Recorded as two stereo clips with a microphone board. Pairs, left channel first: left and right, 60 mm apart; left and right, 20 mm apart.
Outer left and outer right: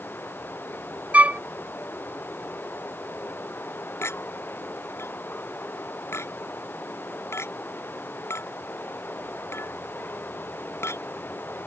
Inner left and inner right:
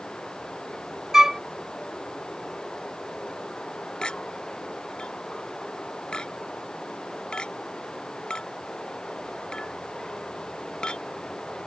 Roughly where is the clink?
Left.